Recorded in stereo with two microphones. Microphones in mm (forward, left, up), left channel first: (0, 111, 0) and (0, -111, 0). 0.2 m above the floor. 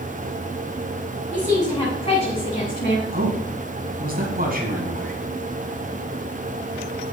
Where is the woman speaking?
5° left (ahead or behind), 1.9 m; by 3.0 s 45° left (ahead or behind), 1.6 m.